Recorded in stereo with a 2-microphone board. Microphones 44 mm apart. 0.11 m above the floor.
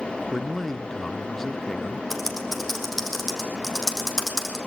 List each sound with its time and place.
0.3 s a man speaking: 10° left (ahead or behind), 1.2 m
2.1 s typing on a keyboard: 5° left (ahead or behind), 4.5 m